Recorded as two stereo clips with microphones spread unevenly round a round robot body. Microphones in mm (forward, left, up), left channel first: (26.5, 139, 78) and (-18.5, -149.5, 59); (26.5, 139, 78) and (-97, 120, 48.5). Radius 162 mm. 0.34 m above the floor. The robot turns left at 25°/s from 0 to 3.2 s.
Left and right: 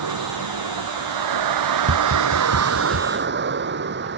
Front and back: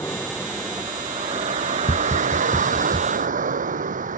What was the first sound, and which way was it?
A vehicle, 75° right.